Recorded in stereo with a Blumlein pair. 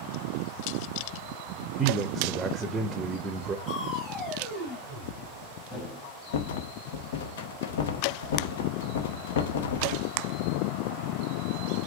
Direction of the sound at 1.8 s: 15° right.